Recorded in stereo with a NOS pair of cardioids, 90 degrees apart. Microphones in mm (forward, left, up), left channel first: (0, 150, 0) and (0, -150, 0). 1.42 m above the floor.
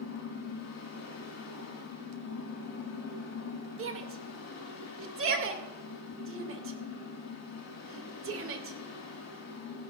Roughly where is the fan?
Ahead left.